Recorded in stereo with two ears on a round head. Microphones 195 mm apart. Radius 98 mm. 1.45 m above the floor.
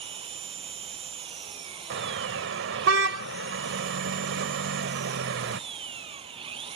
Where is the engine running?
25° right (ahead or behind).